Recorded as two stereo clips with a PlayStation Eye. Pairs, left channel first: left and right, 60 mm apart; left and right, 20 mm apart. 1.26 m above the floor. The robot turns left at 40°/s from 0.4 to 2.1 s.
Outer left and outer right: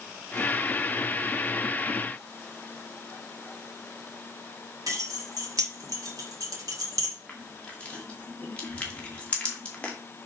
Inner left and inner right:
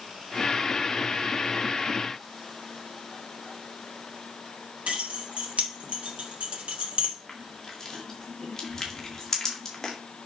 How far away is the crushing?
About 2 m.